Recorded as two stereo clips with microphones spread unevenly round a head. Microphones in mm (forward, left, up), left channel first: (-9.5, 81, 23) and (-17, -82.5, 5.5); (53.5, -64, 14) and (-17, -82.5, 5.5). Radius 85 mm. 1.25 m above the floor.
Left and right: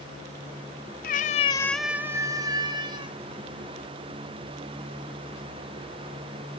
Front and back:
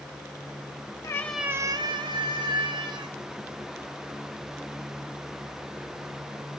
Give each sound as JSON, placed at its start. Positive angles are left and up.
{"t": 1.0, "sound": "a cat meowing", "azimuth_deg": 65, "distance_m": 1.0}